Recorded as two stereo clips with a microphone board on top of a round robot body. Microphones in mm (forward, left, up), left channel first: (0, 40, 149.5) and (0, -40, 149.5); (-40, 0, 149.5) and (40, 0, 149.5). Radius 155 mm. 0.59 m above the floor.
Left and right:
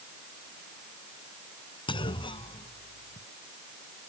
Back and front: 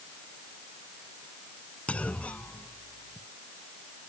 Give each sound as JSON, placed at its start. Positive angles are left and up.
{"t": 1.9, "sound": "a clunk", "azimuth_deg": 105}